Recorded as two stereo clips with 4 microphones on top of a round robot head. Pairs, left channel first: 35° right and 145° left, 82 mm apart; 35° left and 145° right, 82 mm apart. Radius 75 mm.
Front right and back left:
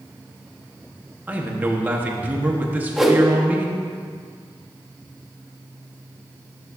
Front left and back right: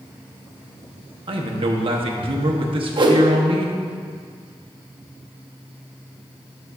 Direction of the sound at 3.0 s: 125° right.